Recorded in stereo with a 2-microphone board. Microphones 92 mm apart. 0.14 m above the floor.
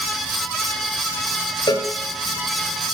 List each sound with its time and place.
1.7 s a cowbell: 55° left (ahead or behind), 1.8 m